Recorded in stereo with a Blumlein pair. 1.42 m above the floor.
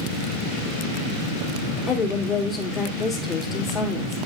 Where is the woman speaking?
20° left, 2 m.